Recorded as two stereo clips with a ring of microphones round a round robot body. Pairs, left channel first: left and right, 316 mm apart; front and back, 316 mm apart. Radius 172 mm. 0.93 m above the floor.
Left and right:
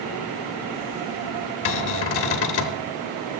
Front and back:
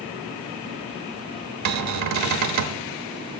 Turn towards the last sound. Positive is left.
turn(degrees=140)